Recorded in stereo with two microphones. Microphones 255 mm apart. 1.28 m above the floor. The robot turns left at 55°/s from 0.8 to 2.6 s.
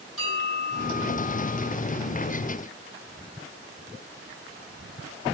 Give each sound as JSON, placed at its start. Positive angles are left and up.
{"t": 0.2, "sound": "a bell", "azimuth_deg": 120, "distance_m": 5.0}